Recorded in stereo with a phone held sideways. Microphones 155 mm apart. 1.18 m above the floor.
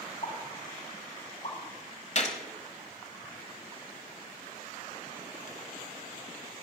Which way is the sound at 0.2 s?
55° left (ahead or behind).